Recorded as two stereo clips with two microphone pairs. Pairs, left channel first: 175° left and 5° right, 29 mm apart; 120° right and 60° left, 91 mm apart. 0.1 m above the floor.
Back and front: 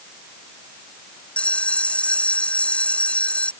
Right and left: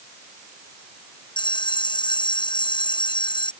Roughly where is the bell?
Behind right.